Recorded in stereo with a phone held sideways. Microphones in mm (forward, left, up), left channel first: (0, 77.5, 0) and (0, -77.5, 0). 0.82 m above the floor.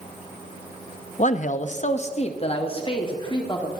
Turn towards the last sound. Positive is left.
turn(degrees=25)  # may be behind; listen again after turning